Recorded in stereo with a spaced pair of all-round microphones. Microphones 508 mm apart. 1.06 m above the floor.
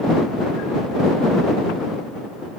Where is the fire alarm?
No fire alarm in this recording.